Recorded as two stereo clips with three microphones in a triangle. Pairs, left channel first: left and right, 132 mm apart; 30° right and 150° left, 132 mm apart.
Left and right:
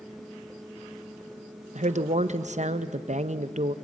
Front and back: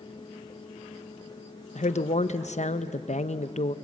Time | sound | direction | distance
1.8 | a woman speaking | 60° right | 0.7 m